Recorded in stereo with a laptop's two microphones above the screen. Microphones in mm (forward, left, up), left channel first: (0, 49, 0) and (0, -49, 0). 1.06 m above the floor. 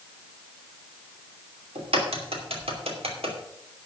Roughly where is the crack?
Right.